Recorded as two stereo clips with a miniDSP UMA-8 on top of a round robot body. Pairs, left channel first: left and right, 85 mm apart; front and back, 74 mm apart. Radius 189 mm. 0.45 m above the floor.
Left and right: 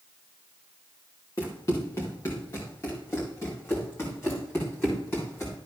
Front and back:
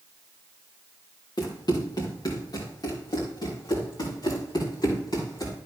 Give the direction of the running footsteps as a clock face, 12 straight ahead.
11 o'clock.